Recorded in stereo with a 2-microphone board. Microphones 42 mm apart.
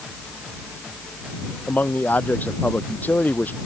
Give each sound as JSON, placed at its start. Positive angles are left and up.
{"t": 1.7, "sound": "a man speaking", "side_deg": 45}